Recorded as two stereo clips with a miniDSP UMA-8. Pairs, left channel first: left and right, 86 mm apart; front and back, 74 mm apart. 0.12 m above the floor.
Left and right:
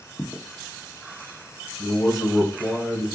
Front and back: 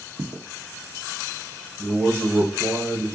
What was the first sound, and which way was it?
Footsteps, straight behind.